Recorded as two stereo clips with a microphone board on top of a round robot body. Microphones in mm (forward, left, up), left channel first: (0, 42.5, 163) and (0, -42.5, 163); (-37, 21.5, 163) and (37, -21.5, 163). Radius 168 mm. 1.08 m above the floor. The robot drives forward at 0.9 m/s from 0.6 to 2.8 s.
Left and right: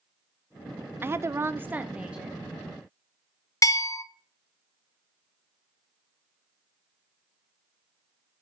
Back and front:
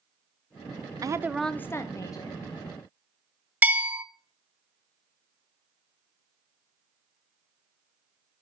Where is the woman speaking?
35° right, 0.5 m; by 2.4 s 170° right, 1.1 m.